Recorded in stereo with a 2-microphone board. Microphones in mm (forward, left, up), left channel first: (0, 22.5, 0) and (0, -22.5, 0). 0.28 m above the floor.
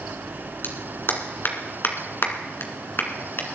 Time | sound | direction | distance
0.6 | a clap | 50° left (ahead or behind) | 2 m